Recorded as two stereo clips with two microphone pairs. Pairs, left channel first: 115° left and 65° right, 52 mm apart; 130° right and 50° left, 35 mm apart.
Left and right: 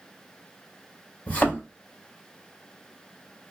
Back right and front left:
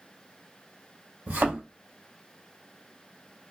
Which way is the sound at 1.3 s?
65° left.